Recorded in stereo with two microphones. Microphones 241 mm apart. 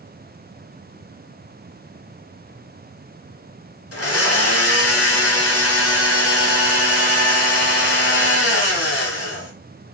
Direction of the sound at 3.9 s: 70° left (ahead or behind).